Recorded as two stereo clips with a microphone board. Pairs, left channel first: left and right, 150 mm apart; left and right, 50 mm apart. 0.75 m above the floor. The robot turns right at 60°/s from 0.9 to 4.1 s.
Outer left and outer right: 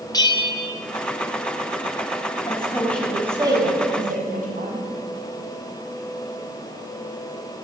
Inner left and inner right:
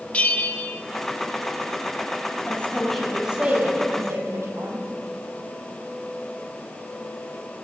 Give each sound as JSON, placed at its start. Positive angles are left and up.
{"t": 0.1, "sound": "a bell", "side_deg": 25, "distance_m": 1.7}
{"t": 2.5, "sound": "a woman speaking", "azimuth_deg": 145, "distance_m": 6.5}